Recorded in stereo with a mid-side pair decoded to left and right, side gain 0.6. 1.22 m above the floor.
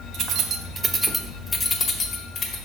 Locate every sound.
0.1 s keys jangling: 60° right, 1.1 m; by 2.6 s 50° left, 1.6 m